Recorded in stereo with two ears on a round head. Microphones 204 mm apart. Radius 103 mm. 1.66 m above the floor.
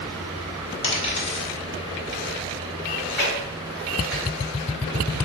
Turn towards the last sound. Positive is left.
turn(degrees=5)  # may be behind; listen again after turning